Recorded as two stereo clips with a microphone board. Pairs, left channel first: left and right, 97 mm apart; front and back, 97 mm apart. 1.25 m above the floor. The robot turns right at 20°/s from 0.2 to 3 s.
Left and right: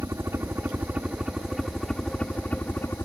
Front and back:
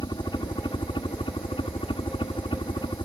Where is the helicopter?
30° right; by 3.1 s 25° left.